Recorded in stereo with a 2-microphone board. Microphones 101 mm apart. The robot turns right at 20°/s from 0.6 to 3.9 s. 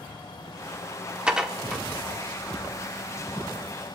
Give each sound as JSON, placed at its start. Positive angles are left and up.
{"t": 1.3, "sound": "dishes clattering", "side_deg": -10, "distance_m": 1.2}